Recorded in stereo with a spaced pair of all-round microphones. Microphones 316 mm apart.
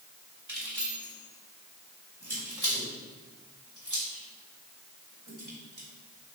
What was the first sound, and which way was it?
Keys jangling, 65° right (ahead or behind).